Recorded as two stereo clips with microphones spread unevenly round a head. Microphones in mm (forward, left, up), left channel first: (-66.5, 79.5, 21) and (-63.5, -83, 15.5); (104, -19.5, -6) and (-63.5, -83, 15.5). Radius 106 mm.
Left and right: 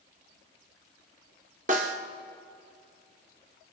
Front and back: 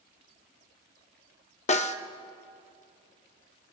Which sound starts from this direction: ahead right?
A snare drum, at 1.7 s.